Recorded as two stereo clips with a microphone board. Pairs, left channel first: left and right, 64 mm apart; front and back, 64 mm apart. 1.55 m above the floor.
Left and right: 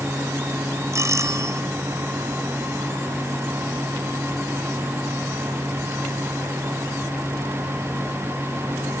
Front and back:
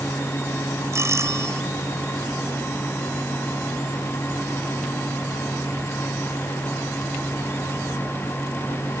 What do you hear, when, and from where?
0.9 s a doorbell: 135° right